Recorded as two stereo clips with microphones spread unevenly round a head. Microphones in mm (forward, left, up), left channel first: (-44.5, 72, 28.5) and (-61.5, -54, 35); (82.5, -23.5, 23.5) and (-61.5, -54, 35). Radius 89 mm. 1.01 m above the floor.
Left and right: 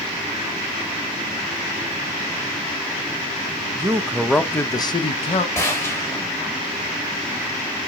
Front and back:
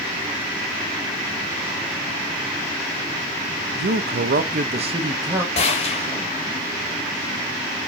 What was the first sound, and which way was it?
A man speaking, 165° right.